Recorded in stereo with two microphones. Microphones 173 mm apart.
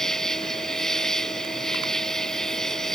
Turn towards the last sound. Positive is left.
turn(degrees=5)  # may be behind; listen again after turning